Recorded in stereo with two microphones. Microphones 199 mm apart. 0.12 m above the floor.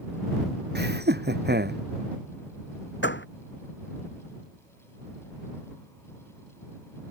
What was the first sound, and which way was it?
Laughter, 55° right (ahead or behind).